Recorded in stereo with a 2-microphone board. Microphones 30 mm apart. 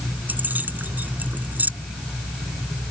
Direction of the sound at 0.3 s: 85° right.